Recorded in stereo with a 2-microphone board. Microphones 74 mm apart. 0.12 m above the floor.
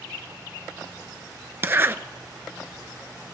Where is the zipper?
30° right (ahead or behind), 0.6 m.